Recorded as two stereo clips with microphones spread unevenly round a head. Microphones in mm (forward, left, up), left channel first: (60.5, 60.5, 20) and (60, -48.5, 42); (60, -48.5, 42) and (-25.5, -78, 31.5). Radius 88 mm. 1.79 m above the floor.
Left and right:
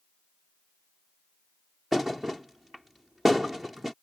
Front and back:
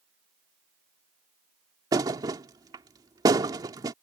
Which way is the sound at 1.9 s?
155° right.